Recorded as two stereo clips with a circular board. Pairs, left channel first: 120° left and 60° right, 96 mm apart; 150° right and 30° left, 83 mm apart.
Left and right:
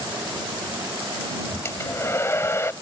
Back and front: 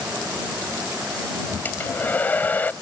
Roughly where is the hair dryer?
Behind.